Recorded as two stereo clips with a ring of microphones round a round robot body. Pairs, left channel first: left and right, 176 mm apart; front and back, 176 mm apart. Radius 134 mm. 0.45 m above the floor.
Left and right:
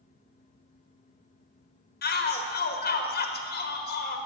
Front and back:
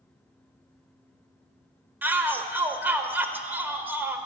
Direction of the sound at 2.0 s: 100° left.